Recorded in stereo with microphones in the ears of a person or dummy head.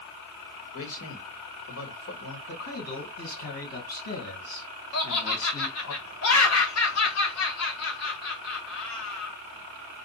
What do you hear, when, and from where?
0.7 s a man speaking: 70° left (ahead or behind), 1.6 m
2.5 s a man speaking: 70° left (ahead or behind), 2 m
4.9 s laughter: 70° left (ahead or behind), 0.9 m